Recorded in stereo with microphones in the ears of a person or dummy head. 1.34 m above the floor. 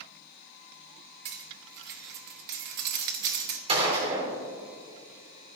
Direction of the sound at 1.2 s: 55° right (ahead or behind).